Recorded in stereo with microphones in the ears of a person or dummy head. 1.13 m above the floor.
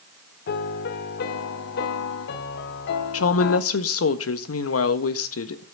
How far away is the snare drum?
No snare drum in this recording.